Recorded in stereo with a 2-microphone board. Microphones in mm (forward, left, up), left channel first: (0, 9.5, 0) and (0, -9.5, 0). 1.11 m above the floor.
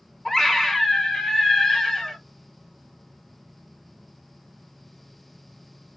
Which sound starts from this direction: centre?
A scream, at 0.2 s.